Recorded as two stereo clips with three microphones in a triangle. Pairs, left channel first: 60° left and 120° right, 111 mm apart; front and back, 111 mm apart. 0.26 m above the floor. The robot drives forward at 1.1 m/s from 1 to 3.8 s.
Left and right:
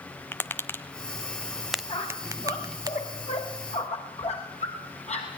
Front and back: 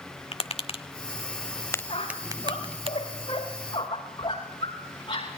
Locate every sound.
0.3 s tapping: 10° right, 1.2 m; by 2.9 s 170° right, 1.2 m
1.9 s a squeak: 35° left, 8.5 m; by 5.3 s 45° left, 7 m